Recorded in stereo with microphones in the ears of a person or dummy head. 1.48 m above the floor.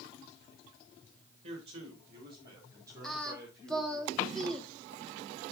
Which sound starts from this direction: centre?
Singing, at 3.0 s.